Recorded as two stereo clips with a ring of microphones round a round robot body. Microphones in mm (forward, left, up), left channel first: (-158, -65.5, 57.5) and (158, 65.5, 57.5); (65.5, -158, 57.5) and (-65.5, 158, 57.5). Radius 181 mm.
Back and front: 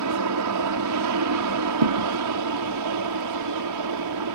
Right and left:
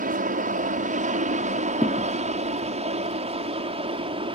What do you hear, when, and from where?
0.0 s an aircraft: 50° left; by 4.4 s 40° left
1.8 s a thud: 20° left